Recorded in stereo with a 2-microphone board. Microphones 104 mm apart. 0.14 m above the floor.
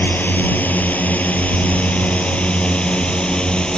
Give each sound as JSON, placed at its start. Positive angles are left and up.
{"t": 0.0, "sound": "a drone", "side_deg": 15}